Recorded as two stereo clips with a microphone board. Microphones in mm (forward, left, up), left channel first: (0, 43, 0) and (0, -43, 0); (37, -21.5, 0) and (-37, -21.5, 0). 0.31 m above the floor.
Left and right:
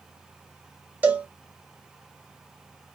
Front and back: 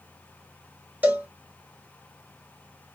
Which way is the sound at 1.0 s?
140° right.